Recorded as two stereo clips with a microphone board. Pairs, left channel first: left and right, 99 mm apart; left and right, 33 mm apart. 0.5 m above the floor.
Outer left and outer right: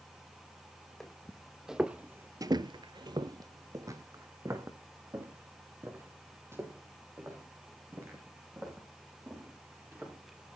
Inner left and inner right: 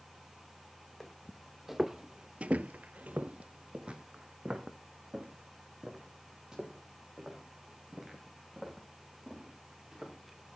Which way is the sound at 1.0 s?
5° left (ahead or behind).